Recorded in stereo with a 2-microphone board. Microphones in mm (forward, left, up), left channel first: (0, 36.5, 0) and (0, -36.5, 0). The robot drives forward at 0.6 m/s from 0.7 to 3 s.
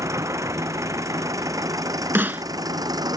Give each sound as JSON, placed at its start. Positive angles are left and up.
{"t": 0.0, "sound": "an engine running", "side_deg": -45}
{"t": 2.1, "sound": "a snare drum", "side_deg": -30}